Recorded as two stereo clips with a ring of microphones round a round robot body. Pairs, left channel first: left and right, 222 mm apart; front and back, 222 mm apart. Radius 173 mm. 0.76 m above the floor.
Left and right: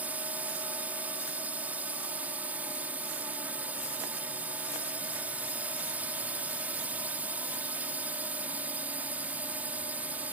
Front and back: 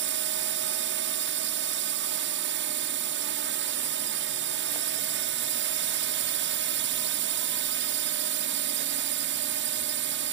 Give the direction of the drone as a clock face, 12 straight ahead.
6 o'clock.